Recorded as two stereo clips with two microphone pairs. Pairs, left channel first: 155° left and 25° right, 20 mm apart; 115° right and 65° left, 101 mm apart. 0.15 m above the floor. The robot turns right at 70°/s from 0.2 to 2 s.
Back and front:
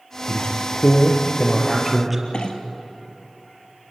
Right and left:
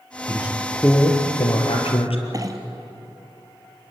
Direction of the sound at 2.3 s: 120° left.